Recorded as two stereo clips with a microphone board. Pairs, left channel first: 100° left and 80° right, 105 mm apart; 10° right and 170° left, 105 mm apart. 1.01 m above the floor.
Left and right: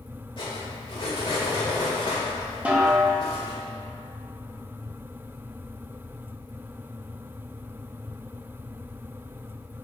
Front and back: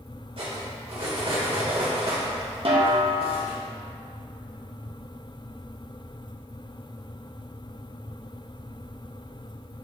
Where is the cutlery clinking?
140° left, 2 m.